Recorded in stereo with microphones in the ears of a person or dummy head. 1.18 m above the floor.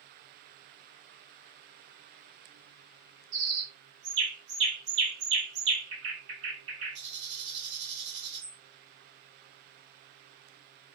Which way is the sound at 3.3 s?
65° right (ahead or behind).